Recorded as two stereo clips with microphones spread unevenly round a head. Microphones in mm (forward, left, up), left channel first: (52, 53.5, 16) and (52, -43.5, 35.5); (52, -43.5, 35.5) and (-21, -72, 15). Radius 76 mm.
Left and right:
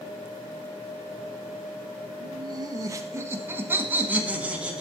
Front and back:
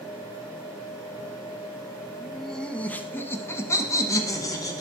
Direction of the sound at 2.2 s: 65° right.